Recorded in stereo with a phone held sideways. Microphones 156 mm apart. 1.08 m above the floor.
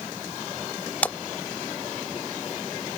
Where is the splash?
10° left (ahead or behind).